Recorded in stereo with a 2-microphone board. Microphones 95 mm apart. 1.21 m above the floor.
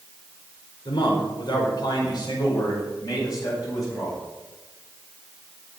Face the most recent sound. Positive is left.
turn(degrees=40)  # may be behind; listen again after turning